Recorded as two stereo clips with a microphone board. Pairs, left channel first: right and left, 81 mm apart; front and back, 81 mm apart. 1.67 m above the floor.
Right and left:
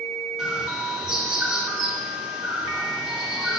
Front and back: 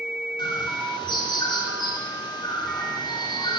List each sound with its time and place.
0.4 s a bird: 5° left, 3 m